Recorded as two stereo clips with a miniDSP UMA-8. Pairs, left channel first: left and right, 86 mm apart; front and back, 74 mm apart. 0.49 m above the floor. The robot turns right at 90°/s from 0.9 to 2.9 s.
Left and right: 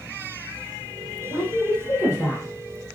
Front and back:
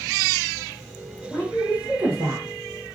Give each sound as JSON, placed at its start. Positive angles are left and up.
{"t": 1.3, "sound": "a woman speaking", "azimuth_deg": 65, "distance_m": 1.3}